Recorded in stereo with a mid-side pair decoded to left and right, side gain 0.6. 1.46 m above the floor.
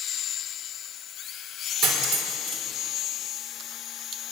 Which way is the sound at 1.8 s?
70° right.